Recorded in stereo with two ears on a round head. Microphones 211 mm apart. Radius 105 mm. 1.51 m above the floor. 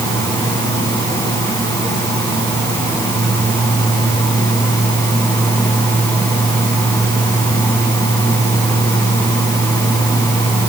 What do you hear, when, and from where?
Only background noise.